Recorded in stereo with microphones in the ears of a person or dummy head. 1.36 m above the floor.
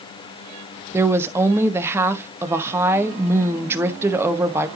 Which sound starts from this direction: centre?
A woman speaking, at 0.9 s.